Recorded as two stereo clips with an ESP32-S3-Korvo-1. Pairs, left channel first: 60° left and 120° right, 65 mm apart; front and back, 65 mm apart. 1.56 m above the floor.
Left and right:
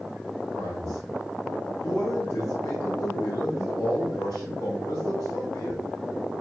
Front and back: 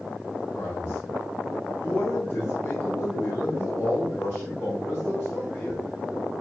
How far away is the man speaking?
About 1.3 m.